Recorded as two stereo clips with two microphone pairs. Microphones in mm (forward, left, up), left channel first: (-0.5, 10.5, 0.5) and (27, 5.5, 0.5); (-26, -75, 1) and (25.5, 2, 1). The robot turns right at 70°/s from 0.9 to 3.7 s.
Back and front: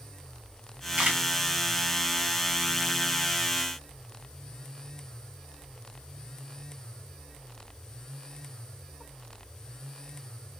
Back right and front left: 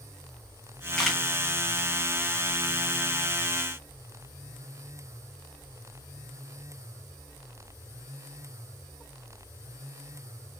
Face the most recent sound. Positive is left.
turn(degrees=150)